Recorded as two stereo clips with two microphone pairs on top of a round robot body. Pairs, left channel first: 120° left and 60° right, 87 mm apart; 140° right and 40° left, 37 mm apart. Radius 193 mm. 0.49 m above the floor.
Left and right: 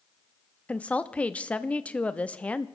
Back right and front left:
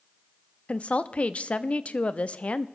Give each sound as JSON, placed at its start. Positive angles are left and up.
{"t": 0.7, "sound": "a woman speaking", "azimuth_deg": -175, "distance_m": 0.9}